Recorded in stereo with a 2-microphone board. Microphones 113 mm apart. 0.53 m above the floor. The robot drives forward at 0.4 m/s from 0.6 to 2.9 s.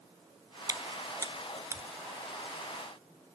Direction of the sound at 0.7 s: 35° right (ahead or behind).